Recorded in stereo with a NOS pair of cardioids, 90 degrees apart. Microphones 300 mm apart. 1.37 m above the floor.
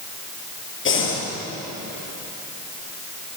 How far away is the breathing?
About 5.5 m.